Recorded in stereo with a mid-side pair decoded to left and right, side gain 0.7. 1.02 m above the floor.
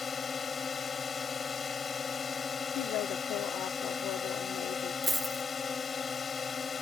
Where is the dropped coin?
10° right.